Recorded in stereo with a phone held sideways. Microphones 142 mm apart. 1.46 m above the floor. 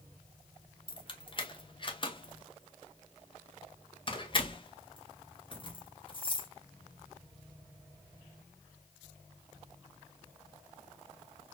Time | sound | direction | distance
0.9 | keys jangling | 35° left (ahead or behind) | 0.8 m